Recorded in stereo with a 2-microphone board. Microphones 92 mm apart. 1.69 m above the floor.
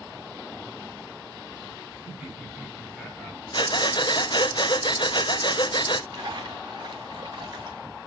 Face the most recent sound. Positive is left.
turn(degrees=-55)  # may be behind; listen again after turning